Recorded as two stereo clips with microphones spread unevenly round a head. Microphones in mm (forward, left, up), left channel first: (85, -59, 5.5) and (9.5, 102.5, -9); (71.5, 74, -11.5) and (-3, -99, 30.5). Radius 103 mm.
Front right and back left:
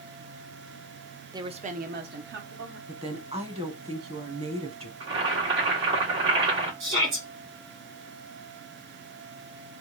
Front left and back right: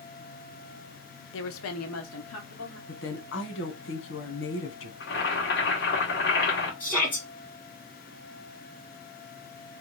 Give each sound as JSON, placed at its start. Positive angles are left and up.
{"t": 1.3, "sound": "a woman speaking", "azimuth_deg": 40, "distance_m": 0.6}
{"t": 2.9, "sound": "a woman speaking", "azimuth_deg": 60, "distance_m": 1.2}
{"t": 5.0, "sound": "boiling", "azimuth_deg": 100, "distance_m": 1.8}
{"t": 6.8, "sound": "a shout", "azimuth_deg": 150, "distance_m": 2.0}